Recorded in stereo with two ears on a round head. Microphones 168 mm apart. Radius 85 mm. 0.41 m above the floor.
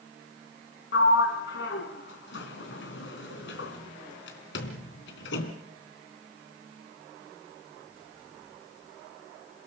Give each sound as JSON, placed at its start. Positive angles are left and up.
{"t": 0.9, "sound": "a sliding door", "side_deg": 75, "distance_m": 3.0}